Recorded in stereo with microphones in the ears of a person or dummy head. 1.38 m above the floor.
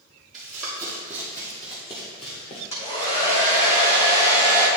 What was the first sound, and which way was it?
Running footsteps, centre (ahead or behind).